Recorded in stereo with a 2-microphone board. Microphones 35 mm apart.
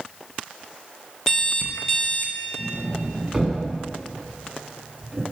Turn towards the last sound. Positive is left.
turn(degrees=-10)  # may be behind; listen again after turning